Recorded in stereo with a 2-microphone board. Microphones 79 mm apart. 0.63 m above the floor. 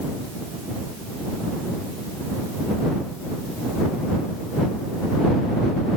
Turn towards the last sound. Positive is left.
No sound to turn to.